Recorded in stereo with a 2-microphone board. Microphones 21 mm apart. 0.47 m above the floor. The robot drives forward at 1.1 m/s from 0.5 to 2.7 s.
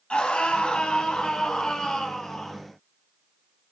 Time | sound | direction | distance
0.1 | a scream | 70° left (ahead or behind) | 2.5 m